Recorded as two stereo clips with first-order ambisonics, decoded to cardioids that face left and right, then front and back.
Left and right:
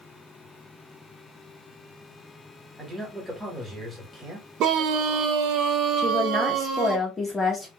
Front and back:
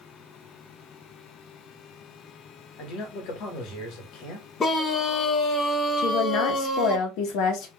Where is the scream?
60° right, 0.8 m.